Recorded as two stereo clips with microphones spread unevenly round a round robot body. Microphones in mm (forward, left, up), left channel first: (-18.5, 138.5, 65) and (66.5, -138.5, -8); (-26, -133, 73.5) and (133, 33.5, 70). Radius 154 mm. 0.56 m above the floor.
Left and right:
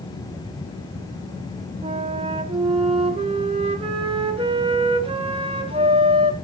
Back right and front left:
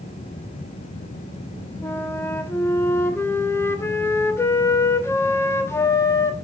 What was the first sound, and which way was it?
A flute, 60° right.